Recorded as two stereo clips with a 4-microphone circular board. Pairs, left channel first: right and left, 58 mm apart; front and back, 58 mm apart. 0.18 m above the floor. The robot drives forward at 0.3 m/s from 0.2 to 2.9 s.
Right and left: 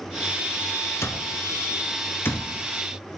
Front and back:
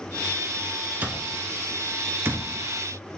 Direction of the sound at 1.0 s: 120° right.